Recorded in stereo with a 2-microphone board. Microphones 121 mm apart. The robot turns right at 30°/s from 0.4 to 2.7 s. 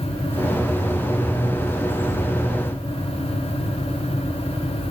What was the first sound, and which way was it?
Only background noise.